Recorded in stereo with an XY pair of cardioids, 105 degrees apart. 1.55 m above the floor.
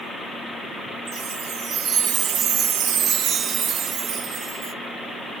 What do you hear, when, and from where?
1.1 s a chime: 60° right, 0.6 m